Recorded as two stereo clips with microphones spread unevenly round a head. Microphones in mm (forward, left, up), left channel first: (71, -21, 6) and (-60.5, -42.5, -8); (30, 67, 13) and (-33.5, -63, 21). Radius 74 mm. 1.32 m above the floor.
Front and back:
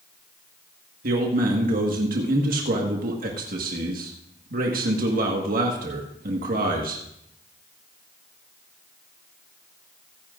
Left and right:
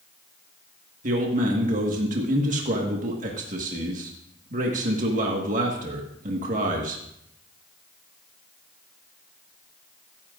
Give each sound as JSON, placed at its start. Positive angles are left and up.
{"t": 1.0, "sound": "a man speaking", "azimuth_deg": -155, "distance_m": 1.6}